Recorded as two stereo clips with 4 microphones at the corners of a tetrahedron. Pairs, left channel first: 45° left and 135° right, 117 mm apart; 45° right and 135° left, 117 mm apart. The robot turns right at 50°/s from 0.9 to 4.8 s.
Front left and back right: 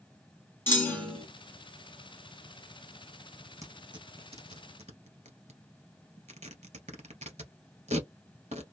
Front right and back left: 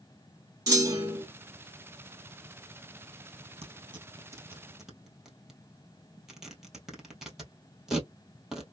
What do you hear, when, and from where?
0.7 s a clunk: 105° left, 1.9 m; by 1.2 s 125° left, 1.9 m
3.6 s tearing paper: 165° left, 1.6 m; by 8.6 s 140° right, 1.6 m